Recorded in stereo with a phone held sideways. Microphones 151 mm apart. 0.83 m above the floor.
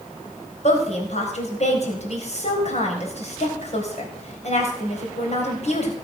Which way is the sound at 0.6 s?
50° left (ahead or behind).